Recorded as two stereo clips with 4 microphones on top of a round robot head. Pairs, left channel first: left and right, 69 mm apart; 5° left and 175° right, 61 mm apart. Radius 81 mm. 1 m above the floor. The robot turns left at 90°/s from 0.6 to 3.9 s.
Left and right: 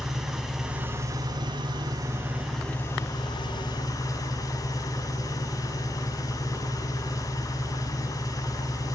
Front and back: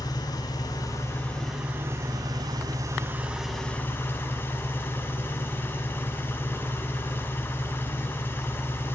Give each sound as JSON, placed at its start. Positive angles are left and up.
{"t": 0.0, "sound": "an engine running", "azimuth_deg": -5, "distance_m": 6.5}